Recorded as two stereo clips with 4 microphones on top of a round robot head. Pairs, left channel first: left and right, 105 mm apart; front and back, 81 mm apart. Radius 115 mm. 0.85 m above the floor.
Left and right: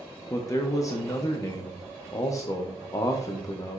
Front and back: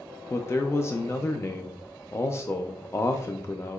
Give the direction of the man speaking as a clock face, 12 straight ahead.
10 o'clock.